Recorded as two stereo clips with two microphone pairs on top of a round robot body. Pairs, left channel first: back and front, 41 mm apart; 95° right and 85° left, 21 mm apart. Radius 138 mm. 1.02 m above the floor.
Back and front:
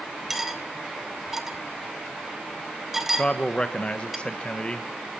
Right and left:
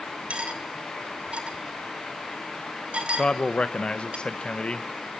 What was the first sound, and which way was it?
Cutlery clinking, 85° left.